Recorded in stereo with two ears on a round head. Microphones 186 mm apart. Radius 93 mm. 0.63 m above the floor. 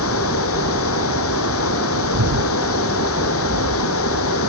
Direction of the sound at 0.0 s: 80° left.